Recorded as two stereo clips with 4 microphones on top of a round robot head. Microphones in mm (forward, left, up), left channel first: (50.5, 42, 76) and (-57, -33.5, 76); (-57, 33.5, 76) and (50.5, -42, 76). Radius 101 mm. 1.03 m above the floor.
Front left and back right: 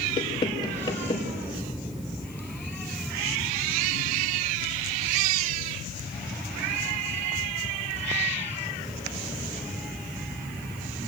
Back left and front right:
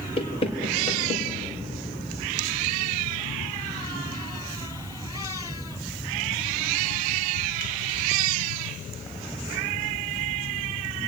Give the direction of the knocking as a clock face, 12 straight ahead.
9 o'clock.